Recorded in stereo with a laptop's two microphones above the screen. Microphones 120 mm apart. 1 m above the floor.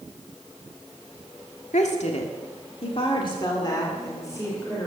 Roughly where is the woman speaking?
Left.